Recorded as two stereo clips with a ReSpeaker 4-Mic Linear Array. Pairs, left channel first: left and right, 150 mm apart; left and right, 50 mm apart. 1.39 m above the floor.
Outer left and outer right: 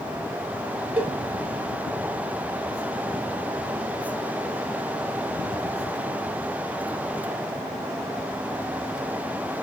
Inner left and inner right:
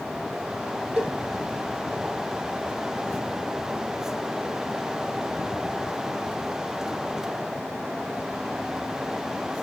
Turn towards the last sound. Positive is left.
turn(degrees=-10)  # may be behind; listen again after turning